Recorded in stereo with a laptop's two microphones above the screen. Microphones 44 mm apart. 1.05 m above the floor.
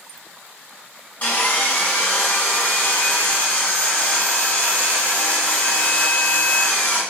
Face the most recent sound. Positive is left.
turn(degrees=40)  # may be behind; listen again after turning